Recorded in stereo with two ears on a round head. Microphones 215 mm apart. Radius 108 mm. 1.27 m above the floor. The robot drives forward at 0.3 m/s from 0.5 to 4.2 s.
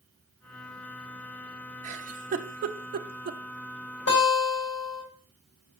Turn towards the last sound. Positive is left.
turn(degrees=60)  # may be behind; listen again after turning